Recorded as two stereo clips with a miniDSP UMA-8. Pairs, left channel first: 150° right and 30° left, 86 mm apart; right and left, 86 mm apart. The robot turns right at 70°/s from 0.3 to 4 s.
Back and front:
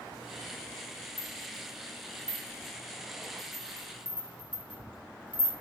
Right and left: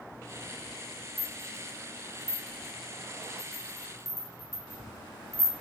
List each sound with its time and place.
1.2 s a rattle: 15° left, 0.9 m; by 5.5 s 145° right, 0.9 m